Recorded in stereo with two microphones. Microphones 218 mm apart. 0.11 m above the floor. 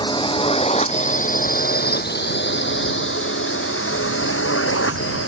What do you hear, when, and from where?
0.0 s a drone: 20° left (ahead or behind); by 5.3 s 75° left (ahead or behind)